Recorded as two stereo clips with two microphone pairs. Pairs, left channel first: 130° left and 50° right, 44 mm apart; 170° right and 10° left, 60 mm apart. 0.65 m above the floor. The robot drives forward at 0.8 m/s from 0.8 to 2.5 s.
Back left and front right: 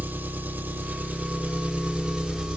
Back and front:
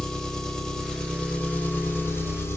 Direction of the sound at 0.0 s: 90° right.